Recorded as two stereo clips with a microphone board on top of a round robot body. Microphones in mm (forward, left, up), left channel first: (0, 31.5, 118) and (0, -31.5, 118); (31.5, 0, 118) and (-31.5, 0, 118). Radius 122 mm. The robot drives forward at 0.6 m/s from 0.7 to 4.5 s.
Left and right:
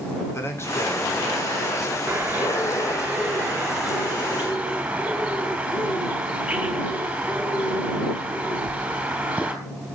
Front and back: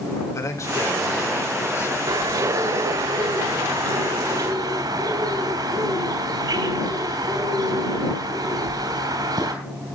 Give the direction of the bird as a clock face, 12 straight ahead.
5 o'clock.